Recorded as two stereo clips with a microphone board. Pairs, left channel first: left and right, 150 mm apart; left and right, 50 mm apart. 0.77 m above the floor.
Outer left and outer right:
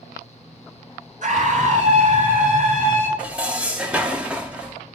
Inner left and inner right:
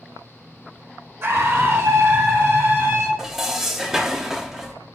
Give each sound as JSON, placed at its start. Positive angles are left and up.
{"t": 1.2, "sound": "a scream", "side_deg": -55, "distance_m": 2.0}
{"t": 3.2, "sound": "dishes clattering", "side_deg": -10, "distance_m": 0.9}